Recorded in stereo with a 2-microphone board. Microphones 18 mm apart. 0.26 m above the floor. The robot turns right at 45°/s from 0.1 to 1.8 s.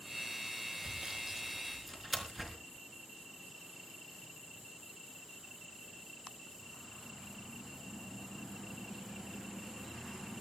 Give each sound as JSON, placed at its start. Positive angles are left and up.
{"t": 0.8, "sound": "sawing", "side_deg": -45, "distance_m": 3.5}